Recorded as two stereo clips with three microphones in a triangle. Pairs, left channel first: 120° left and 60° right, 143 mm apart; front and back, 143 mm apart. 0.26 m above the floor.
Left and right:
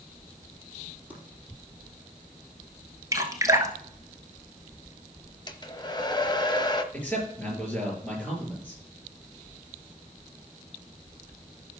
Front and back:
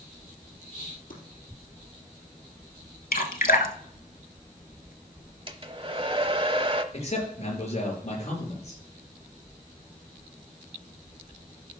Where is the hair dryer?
160° left, 0.9 m.